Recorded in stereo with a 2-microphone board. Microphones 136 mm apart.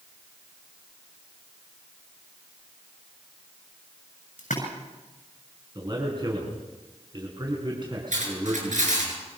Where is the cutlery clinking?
75° right (ahead or behind), 8 m.